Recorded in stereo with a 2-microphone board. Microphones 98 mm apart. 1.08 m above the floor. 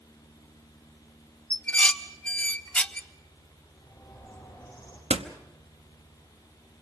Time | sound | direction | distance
1.5 | dishes clattering | 15° left (ahead or behind) | 0.7 m
3.8 | a bird | 20° left (ahead or behind) | 7 m
5.1 | a door slam | 75° right (ahead or behind) | 1.0 m